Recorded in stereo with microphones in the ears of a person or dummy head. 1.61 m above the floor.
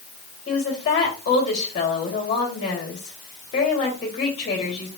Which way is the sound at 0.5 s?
30° left (ahead or behind).